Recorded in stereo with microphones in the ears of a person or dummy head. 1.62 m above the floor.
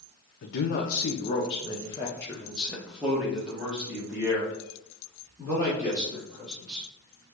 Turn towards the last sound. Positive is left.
turn(degrees=-20)  # may be behind; listen again after turning